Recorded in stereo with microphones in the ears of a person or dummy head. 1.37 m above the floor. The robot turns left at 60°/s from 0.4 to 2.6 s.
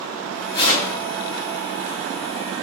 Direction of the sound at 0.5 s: 25° left (ahead or behind).